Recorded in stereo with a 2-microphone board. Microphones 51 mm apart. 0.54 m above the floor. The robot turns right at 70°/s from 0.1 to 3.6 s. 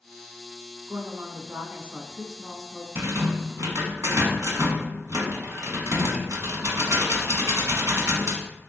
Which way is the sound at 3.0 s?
130° right.